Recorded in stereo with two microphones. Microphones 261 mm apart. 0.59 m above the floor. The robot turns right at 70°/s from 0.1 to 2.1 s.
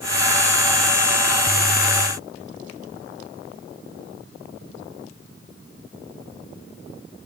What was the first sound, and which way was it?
Only background noise.